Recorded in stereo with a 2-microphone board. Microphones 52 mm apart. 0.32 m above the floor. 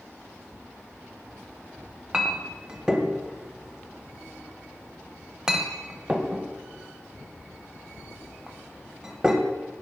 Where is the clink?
15° right (ahead or behind), 0.7 m.